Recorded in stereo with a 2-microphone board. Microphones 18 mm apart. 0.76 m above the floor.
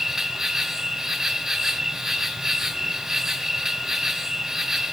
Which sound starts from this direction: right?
An insect, at 0.0 s.